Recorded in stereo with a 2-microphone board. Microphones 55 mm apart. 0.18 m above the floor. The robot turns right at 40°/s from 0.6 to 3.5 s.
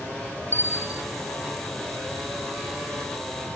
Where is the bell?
40° right (ahead or behind), 2.5 m; by 1.0 s 25° right (ahead or behind), 2.5 m.